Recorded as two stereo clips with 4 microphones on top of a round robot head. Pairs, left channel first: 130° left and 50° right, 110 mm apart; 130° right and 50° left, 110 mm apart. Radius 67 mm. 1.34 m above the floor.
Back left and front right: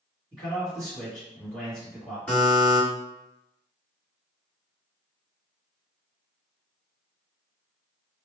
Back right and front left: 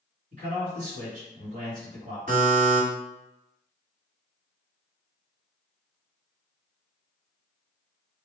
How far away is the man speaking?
About 1.6 m.